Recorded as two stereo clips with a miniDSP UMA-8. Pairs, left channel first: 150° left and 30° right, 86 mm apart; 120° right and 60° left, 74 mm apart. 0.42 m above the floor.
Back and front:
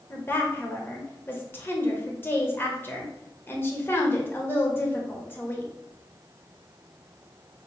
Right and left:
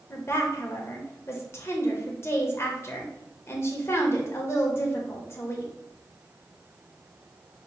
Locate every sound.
0.1 s a woman speaking: 155° right, 1.1 m